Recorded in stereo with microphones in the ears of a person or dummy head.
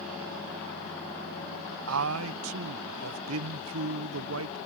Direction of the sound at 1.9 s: 80° right.